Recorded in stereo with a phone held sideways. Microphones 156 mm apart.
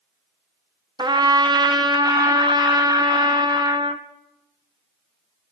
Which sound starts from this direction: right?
A trumpet, at 1.0 s.